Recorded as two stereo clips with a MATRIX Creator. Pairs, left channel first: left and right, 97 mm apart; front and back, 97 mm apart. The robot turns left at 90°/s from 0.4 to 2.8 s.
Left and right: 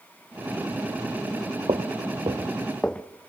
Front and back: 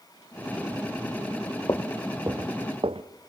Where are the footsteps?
55° right, 1.1 m; by 3.0 s 165° left, 1.0 m.